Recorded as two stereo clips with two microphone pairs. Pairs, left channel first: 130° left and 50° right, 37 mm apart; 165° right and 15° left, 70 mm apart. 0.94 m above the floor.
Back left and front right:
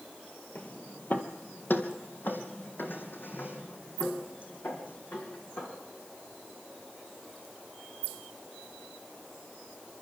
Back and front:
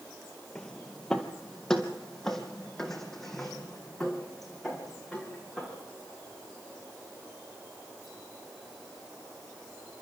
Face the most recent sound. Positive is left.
turn(degrees=110)